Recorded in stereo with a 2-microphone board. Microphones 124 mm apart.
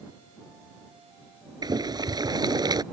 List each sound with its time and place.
1.6 s boiling: 35° right (ahead or behind)